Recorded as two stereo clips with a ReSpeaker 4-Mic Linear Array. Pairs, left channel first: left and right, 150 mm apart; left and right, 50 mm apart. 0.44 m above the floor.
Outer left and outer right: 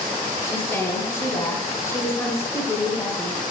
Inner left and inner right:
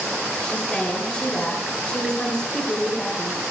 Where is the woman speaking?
20° left (ahead or behind), 2 m.